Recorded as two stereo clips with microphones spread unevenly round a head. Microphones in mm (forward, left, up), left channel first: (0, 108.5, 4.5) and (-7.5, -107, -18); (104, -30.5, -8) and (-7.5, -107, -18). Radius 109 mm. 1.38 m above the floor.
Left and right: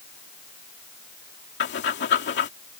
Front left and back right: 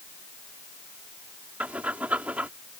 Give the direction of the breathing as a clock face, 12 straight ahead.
8 o'clock.